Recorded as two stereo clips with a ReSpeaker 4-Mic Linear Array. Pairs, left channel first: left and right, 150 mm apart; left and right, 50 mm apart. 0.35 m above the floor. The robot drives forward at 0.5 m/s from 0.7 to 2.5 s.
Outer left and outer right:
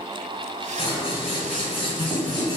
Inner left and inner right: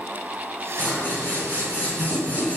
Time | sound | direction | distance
0.8 | scissors | 40° left (ahead or behind) | 1.9 m